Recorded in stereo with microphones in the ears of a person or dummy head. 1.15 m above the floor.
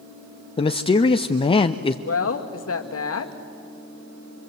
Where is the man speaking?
30° left (ahead or behind), 0.7 m.